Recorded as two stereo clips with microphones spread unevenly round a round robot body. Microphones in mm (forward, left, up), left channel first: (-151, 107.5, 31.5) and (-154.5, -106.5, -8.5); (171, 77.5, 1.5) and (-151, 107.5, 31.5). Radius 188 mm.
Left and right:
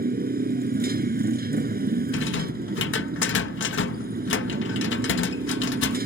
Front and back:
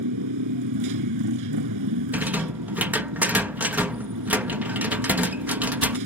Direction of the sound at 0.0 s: 140° right.